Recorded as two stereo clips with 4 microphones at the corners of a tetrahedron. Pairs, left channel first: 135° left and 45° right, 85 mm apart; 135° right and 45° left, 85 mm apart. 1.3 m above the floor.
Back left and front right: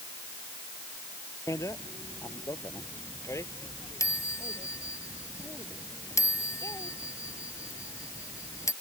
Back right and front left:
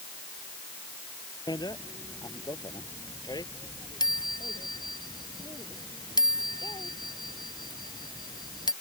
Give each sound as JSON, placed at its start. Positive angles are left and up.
{"t": 1.5, "sound": "a bicycle bell", "azimuth_deg": -170}